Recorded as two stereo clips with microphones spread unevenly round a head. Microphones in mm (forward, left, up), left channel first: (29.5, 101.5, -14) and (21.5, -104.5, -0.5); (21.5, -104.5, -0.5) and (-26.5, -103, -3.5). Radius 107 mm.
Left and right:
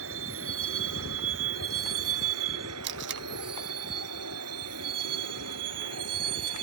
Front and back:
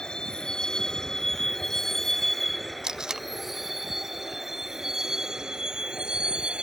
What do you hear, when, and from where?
0.0 s a vehicle: 75° right; by 6.6 s 110° right
2.8 s tape being pulled: 115° right